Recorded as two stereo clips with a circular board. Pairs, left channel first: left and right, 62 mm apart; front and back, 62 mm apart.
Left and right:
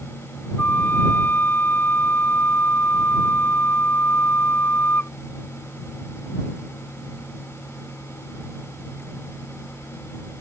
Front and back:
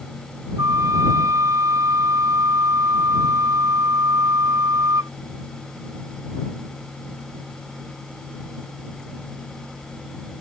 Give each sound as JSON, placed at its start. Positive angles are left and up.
{"t": 0.6, "sound": "a flute", "azimuth_deg": 150}